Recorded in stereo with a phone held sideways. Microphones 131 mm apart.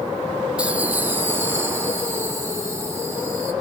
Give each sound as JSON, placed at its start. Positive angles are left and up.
{"t": 0.6, "sound": "laughter", "side_deg": -10, "distance_m": 1.3}